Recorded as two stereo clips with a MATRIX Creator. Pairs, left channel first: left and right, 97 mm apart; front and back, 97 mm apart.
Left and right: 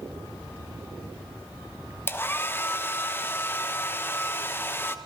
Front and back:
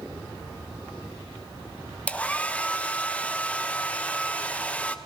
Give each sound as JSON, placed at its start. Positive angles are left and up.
{"t": 2.1, "sound": "a hair dryer", "azimuth_deg": 60, "distance_m": 0.9}